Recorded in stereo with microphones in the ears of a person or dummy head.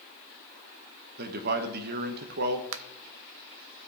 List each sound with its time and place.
1.2 s a man speaking: 60° right (ahead or behind), 1.1 m
2.7 s a finger snap: 70° right (ahead or behind), 0.5 m